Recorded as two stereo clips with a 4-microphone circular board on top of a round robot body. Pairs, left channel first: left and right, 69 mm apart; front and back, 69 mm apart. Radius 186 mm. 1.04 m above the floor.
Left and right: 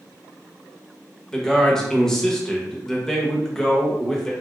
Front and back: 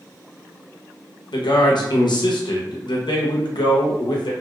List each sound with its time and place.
1.3 s a man speaking: 5° left, 0.8 m